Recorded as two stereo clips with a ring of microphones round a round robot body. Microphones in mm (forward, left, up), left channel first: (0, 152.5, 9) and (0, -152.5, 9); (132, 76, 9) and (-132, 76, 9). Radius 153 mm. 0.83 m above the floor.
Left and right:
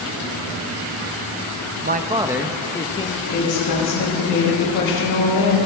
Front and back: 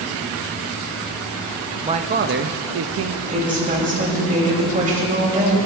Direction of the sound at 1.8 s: 120° right.